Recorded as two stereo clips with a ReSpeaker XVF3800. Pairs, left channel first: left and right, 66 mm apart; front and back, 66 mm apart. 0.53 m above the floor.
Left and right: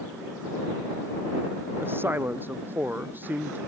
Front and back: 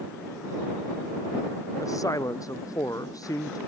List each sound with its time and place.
1.8 s a man speaking: 35° right; by 3.6 s 25° right